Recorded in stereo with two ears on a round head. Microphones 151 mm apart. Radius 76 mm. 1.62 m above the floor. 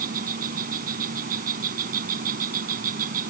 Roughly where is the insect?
Right.